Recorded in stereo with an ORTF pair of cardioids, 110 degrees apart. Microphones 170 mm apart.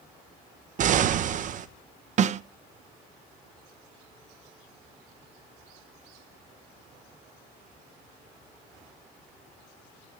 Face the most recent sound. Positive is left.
turn(degrees=-45)